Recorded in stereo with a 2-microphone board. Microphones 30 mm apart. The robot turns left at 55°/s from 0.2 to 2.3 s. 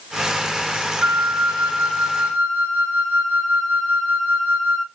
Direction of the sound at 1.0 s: 85° right.